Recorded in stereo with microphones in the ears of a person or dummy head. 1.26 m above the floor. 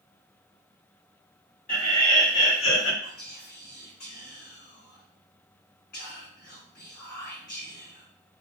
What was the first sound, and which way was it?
Laughter, 40° left (ahead or behind).